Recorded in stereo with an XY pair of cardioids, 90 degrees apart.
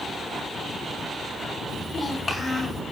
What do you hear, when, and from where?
1.7 s a child speaking: 30° left, 6.5 m; by 2.8 s 35° left, 6.5 m